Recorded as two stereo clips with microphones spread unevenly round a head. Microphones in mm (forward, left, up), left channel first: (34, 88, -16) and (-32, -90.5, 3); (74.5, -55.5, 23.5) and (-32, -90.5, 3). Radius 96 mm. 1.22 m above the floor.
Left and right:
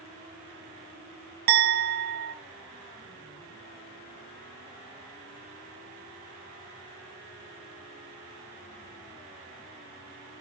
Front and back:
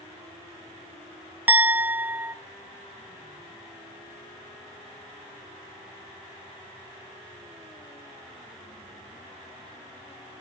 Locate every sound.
1.5 s a clink: 85° right, 0.8 m